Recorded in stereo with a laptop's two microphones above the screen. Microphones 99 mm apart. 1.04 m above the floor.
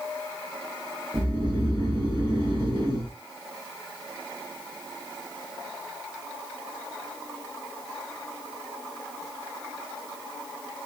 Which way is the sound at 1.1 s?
55° right (ahead or behind).